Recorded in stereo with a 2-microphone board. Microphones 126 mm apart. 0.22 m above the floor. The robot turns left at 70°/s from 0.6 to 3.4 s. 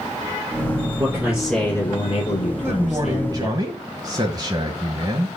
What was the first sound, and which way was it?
A man speaking, 145° right.